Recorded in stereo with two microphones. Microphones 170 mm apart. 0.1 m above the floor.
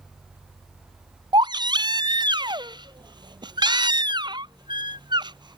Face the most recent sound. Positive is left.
turn(degrees=-25)  # may be behind; listen again after turning